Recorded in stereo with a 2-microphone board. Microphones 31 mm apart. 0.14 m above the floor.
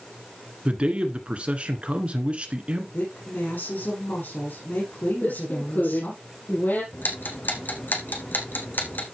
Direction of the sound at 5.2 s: 75° left (ahead or behind).